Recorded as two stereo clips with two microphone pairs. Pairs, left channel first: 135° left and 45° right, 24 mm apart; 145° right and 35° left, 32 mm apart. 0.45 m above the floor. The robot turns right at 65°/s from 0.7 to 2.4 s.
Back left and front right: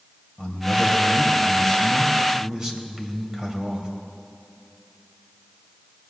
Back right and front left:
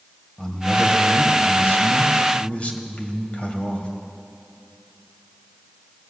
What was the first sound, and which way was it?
A man speaking, 150° left.